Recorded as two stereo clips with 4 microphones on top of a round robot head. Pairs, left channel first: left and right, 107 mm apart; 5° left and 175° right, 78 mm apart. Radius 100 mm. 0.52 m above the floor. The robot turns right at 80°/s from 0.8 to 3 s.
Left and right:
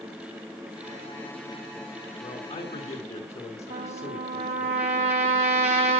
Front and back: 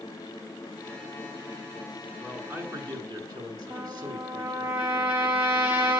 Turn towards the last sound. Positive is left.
turn(degrees=-100)